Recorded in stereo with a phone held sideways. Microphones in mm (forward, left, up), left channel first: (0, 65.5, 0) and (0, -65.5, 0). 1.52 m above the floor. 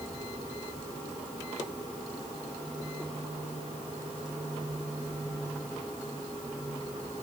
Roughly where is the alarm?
No alarm in this recording.